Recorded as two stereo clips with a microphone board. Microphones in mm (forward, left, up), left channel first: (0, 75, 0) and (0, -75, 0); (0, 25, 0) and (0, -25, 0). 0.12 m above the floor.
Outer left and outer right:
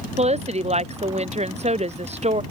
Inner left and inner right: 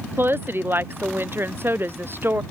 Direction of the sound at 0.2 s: 50° right (ahead or behind).